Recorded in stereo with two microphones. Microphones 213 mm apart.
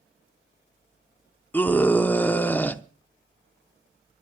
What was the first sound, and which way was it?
A scream, 10° left (ahead or behind).